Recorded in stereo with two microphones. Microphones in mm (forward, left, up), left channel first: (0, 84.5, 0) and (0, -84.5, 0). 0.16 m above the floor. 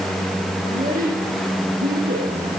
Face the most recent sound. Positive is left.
turn(degrees=-75)  # may be behind; listen again after turning